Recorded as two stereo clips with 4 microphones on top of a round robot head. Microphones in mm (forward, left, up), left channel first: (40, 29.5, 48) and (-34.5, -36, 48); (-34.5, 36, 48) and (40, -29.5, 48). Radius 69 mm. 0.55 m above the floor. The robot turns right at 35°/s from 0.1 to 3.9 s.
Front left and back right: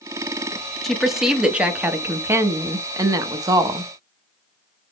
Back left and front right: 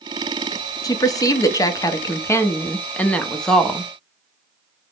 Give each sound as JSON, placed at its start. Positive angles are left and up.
{"t": 0.8, "sound": "a woman speaking", "azimuth_deg": 125, "distance_m": 0.7}